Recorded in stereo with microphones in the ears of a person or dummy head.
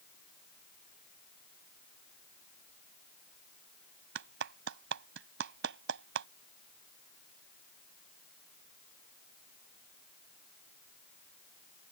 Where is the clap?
70° right (ahead or behind).